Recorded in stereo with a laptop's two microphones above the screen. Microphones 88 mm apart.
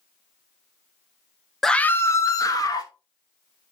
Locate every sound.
1.6 s a scream: centre (ahead or behind), 0.7 m; by 2.9 s 45° left (ahead or behind), 2 m